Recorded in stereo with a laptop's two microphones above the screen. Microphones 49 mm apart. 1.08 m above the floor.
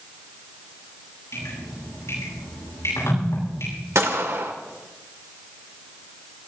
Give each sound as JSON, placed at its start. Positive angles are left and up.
{"t": 1.3, "sound": "dripping", "side_deg": 85, "distance_m": 10.0}
{"t": 4.0, "sound": "a gunshot", "side_deg": -75, "distance_m": 1.9}